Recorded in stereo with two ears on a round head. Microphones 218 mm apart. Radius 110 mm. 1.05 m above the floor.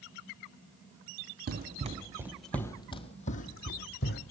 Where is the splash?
I don't hear a splash.